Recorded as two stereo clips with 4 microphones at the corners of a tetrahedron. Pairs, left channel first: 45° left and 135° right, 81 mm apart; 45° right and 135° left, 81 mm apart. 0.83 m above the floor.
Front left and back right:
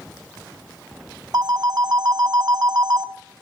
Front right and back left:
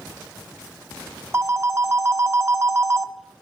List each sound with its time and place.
1.3 s a phone ringing: 170° right, 1.0 m